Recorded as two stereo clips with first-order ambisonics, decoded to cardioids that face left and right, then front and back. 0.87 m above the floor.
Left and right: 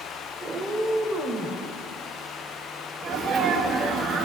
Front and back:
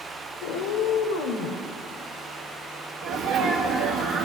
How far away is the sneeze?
About 1.3 m.